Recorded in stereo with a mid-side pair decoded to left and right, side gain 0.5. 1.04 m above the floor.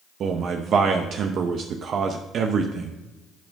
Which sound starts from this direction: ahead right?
A man speaking, at 0.2 s.